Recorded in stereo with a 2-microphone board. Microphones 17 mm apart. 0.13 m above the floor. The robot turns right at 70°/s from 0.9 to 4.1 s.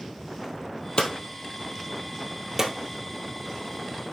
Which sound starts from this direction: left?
Hammering, at 1.0 s.